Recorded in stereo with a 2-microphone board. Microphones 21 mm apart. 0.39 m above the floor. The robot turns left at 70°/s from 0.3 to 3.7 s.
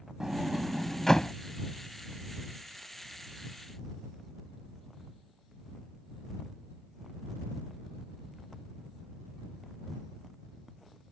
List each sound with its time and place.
0.2 s a sliding door: 30° right (ahead or behind); by 1.3 s 40° left (ahead or behind)